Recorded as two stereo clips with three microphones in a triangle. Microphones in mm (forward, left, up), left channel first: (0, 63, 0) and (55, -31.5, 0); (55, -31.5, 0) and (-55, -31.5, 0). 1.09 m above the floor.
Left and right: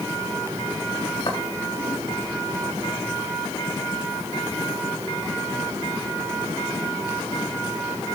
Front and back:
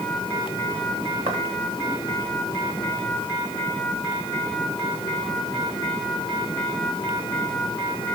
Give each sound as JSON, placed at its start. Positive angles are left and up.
{"t": 1.3, "sound": "footsteps", "azimuth_deg": 160, "distance_m": 4.5}